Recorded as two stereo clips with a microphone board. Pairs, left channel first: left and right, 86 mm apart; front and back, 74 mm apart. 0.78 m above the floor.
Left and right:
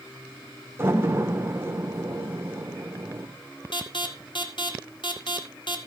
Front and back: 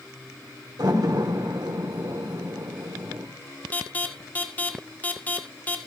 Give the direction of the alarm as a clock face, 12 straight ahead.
10 o'clock.